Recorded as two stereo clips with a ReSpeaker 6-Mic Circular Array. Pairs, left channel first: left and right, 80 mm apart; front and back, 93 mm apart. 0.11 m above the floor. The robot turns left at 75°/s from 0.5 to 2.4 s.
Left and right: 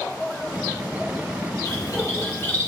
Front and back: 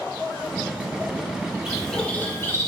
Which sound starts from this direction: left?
A bird, at 1.6 s.